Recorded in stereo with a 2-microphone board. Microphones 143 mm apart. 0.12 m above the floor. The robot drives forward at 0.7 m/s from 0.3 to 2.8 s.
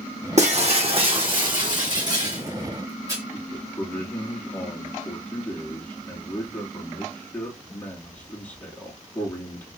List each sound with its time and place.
0.4 s breaking glass: 55° right (ahead or behind), 1.4 m; by 3.2 s 25° right (ahead or behind), 3 m
3.3 s a man speaking: 10° left (ahead or behind), 2.5 m